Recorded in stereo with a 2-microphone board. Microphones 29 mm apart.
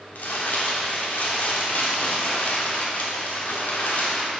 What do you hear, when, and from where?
0.1 s crumpling: 80° left, 1.2 m